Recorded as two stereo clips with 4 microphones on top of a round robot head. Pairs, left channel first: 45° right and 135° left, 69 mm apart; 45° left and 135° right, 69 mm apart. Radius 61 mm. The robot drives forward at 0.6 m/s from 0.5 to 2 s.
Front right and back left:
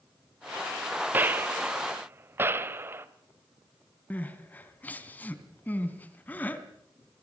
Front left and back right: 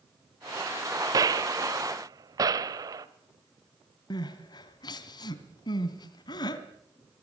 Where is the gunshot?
165° right, 1.5 m.